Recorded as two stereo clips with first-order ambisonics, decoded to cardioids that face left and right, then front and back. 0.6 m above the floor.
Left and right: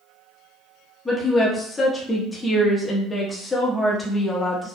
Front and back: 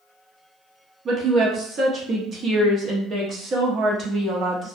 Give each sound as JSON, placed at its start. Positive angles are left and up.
{"t": 1.1, "sound": "a woman speaking", "azimuth_deg": 160, "distance_m": 0.6}